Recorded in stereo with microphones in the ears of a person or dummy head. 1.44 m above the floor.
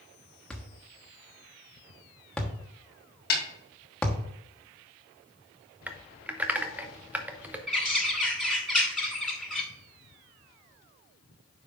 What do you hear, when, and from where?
0.5 s a thud: 10° left (ahead or behind), 1.2 m
3.3 s a snare drum: 75° left (ahead or behind), 1.5 m
5.9 s typing on a keyboard: centre (ahead or behind), 0.6 m
7.7 s a bird: 5° left (ahead or behind), 1.4 m